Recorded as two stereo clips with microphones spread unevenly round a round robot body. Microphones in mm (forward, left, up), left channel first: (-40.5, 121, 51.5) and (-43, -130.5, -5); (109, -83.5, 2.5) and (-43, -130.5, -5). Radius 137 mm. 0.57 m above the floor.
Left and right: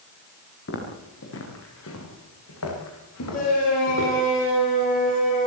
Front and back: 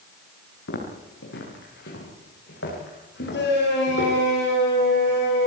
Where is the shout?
25° left, 10 m.